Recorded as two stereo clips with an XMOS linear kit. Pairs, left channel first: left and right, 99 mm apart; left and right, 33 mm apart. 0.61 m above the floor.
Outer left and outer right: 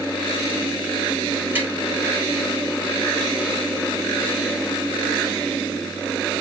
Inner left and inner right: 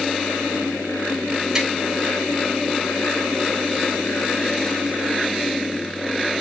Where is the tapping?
20° right (ahead or behind), 6 m.